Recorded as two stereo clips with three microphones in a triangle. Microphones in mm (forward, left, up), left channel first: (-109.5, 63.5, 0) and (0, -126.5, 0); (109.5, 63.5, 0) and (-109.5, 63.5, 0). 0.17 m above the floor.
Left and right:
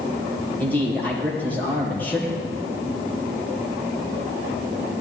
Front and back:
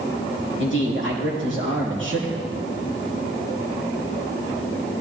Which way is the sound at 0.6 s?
160° right.